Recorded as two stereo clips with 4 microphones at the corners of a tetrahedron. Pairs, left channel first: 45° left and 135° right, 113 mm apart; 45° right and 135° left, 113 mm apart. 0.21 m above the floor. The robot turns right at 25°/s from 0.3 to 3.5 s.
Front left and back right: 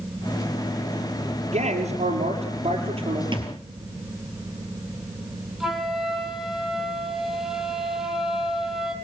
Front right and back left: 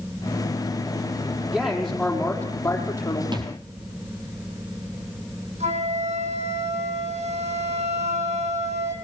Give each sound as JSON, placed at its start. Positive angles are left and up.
{"t": 1.5, "sound": "a man speaking", "azimuth_deg": -145, "distance_m": 5.5}
{"t": 3.3, "sound": "a thud", "azimuth_deg": 180, "distance_m": 3.0}
{"t": 5.6, "sound": "a flute", "azimuth_deg": 140, "distance_m": 3.5}